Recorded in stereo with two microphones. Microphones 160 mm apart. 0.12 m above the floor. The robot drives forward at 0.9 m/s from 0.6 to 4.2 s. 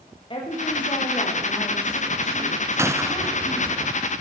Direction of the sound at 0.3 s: 30° left (ahead or behind).